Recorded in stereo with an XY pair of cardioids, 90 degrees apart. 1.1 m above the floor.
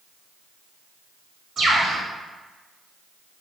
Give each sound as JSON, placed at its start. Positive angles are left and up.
{"t": 1.6, "sound": "a bird", "azimuth_deg": -65, "distance_m": 1.2}